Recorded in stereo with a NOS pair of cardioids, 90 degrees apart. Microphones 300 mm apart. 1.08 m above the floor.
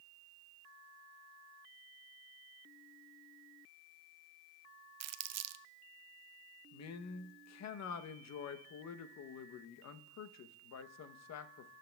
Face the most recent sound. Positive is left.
turn(degrees=60)